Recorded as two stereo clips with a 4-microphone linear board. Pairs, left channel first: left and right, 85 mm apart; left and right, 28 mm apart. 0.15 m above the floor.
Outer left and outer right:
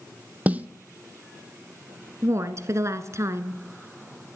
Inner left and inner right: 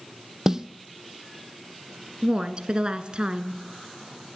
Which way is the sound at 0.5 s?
20° right (ahead or behind).